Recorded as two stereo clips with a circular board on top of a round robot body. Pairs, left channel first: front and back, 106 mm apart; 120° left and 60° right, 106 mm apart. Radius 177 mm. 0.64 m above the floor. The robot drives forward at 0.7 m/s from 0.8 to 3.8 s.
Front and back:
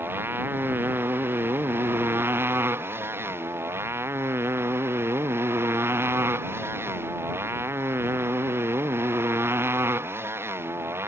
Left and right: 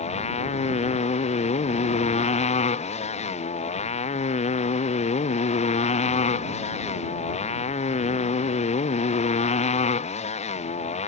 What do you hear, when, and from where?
0.0 s a motorcycle: 110° left